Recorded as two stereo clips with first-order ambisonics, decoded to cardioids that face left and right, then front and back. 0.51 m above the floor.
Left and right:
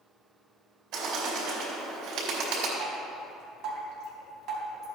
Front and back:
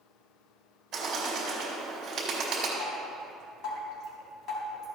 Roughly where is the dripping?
Ahead right.